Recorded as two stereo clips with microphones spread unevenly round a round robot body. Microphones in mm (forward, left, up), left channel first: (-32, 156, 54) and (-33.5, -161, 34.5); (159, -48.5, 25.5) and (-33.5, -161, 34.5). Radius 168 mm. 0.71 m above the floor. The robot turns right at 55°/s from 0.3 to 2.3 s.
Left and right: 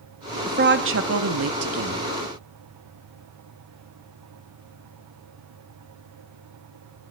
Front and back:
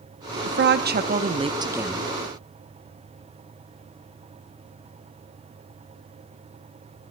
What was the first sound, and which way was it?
A woman speaking, 145° right.